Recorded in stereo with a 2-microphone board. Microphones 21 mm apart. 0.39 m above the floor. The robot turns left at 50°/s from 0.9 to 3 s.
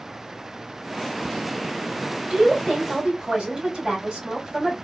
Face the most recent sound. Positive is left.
turn(degrees=-130)